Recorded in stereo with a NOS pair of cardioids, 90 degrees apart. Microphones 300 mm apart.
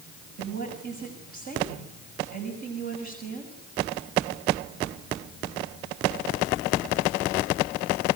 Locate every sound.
0.4 s a woman speaking: 65° right, 7 m